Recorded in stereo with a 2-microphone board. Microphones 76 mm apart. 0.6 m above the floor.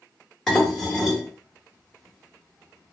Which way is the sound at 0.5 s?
5° left (ahead or behind).